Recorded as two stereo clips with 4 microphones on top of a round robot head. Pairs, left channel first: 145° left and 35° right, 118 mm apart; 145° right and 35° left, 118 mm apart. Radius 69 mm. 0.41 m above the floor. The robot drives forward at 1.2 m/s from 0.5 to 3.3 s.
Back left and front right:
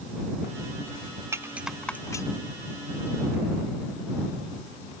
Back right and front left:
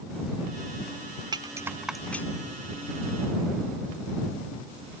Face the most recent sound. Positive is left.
turn(degrees=175)